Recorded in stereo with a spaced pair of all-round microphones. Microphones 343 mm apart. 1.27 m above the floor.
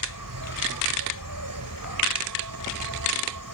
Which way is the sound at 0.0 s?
70° right (ahead or behind).